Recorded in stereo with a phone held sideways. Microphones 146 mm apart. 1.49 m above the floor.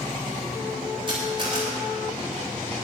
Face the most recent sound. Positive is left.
turn(degrees=-35)  # may be behind; listen again after turning